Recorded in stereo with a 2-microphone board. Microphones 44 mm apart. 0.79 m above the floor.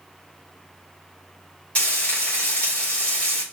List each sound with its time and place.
1.8 s frying: 30° left (ahead or behind), 1.7 m